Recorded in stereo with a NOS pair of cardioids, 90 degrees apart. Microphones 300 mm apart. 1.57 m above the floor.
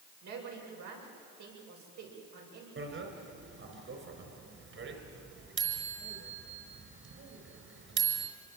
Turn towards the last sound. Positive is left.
turn(degrees=-45)